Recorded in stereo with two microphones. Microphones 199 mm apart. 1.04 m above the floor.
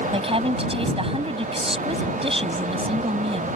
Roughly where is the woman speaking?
Right.